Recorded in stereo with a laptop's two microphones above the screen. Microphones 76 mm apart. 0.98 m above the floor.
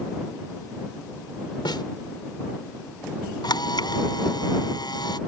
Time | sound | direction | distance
1.6 | a snare drum | 75° left (ahead or behind) | ?
3.4 | a camera shutter | 65° left (ahead or behind) | ?